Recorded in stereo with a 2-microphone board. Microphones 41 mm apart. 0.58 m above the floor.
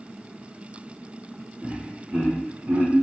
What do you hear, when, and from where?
1.6 s laughter: 15° right (ahead or behind), 0.8 m; by 2.9 s 40° right (ahead or behind), 1.4 m